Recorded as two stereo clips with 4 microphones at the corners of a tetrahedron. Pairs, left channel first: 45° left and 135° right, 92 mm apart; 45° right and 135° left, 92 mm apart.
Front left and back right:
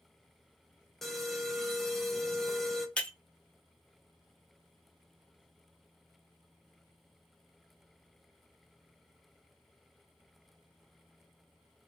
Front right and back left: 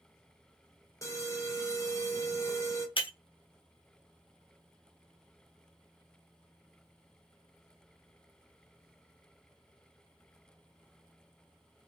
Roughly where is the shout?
I don't hear a shout.